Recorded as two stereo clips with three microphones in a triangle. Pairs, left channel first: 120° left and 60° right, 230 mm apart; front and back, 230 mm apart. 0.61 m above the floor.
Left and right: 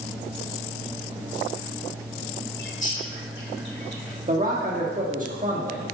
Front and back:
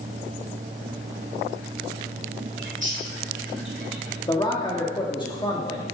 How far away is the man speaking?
About 1.2 m.